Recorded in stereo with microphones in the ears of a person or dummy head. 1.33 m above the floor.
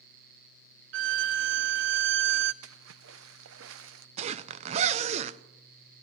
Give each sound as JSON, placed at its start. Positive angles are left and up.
{"t": 0.9, "sound": "a violin", "side_deg": -55, "distance_m": 0.5}
{"t": 2.6, "sound": "a splash", "side_deg": -75, "distance_m": 0.6}
{"t": 4.2, "sound": "a zipper", "side_deg": -35, "distance_m": 0.5}